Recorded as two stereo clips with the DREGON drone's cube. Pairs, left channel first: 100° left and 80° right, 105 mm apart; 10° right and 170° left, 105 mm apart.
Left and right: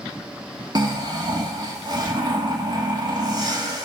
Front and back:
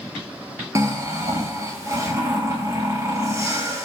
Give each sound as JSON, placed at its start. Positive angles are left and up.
{"t": 0.8, "sound": "snoring", "azimuth_deg": -130, "distance_m": 1.7}